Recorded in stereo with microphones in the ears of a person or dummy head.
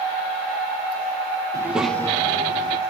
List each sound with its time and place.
1.5 s a child speaking: 20° right (ahead or behind), 1.2 m; by 2.8 s 35° left (ahead or behind), 2 m